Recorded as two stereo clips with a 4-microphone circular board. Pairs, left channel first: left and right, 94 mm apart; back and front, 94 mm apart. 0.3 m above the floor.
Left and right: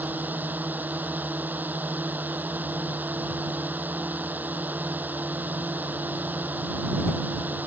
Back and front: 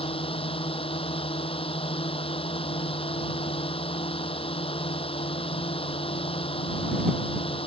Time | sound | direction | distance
0.0 | a drone | 160° right | ?